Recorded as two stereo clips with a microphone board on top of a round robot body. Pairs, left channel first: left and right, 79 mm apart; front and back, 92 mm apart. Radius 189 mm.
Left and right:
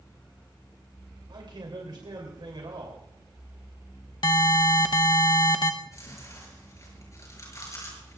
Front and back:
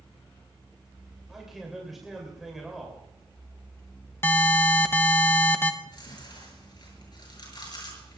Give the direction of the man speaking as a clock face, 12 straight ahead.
3 o'clock.